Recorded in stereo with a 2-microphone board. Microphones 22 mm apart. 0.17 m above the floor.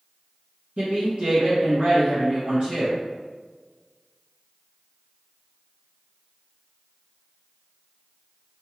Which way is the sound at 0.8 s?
55° right (ahead or behind).